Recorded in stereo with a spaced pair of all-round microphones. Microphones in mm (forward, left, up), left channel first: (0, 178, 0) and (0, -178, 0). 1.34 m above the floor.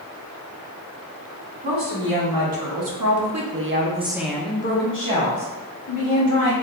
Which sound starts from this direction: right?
A woman speaking, at 1.6 s.